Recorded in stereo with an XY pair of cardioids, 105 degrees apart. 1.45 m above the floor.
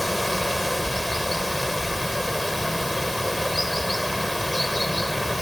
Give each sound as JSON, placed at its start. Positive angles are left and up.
{"t": 0.0, "sound": "running water", "azimuth_deg": 10}